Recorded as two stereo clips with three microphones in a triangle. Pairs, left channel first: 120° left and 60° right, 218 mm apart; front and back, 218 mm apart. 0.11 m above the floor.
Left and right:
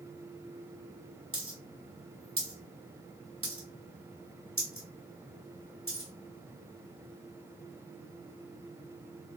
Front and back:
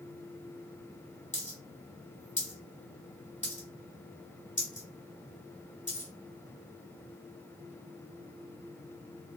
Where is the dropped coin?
55° right, 1.4 m.